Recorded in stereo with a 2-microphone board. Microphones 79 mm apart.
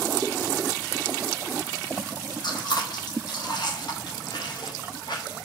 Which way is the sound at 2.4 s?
65° left (ahead or behind).